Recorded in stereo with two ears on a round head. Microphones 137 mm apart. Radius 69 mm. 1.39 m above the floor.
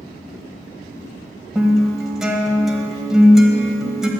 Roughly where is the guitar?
Centre.